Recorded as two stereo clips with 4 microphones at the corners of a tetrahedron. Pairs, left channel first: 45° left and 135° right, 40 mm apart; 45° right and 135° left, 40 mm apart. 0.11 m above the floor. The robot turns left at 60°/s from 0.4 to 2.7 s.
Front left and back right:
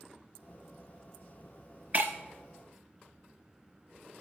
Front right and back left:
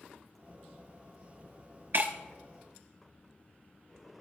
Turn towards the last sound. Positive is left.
turn(degrees=125)